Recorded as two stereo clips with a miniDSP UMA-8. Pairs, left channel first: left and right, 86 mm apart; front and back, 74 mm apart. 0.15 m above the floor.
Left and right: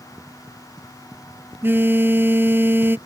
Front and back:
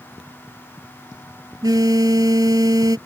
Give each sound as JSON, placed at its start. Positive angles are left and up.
{"t": 1.6, "sound": "a phone buzzing", "azimuth_deg": -155}